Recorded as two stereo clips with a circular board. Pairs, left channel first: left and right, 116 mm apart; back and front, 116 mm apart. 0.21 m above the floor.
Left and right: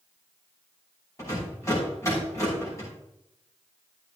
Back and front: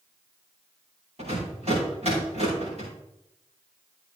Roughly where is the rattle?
Ahead left.